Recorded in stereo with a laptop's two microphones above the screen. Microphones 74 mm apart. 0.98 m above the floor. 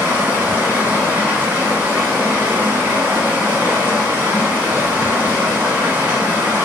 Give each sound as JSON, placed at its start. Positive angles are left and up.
{"t": 0.0, "sound": "running water", "side_deg": -30, "distance_m": 0.9}